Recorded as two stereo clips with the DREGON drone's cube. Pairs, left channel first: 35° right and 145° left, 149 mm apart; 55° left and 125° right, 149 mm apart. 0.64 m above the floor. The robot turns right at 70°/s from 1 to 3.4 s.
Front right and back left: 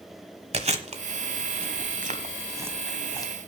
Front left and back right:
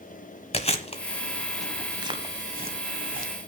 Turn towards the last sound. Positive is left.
turn(degrees=-90)